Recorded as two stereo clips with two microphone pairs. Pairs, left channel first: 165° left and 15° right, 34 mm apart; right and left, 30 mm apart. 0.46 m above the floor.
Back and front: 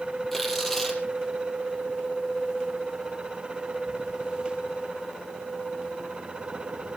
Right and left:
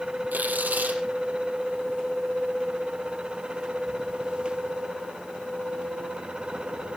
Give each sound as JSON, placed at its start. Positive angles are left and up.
{"t": 0.3, "sound": "tearing paper", "azimuth_deg": 90, "distance_m": 5.0}